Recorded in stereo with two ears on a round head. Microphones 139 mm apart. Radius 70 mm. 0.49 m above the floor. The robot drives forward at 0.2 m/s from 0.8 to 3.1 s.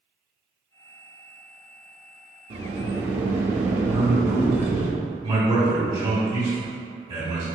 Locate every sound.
2.5 s a sliding door: 45° right (ahead or behind), 0.7 m; by 4.9 s 40° right (ahead or behind), 0.8 m
3.9 s a man speaking: 35° right (ahead or behind), 2.0 m